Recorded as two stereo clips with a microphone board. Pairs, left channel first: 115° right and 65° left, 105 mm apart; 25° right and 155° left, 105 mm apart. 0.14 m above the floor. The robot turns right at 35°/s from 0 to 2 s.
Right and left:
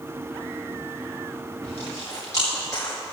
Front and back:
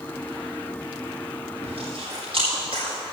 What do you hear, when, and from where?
1.6 s chewing: 175° left, 5 m; by 3.0 s 170° right, 5 m